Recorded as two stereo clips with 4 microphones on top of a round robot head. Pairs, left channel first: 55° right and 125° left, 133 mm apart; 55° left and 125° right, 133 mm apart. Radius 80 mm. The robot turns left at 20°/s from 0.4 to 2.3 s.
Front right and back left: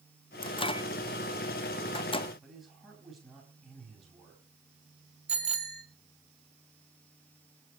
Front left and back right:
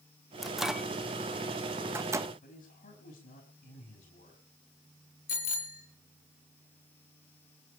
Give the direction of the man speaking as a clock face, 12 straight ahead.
11 o'clock.